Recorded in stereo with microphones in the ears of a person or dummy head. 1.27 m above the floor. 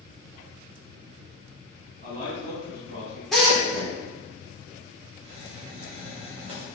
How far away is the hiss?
About 2 m.